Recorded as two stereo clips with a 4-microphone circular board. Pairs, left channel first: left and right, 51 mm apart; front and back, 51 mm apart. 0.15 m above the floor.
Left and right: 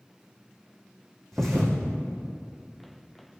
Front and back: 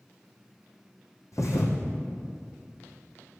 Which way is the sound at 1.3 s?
5° left.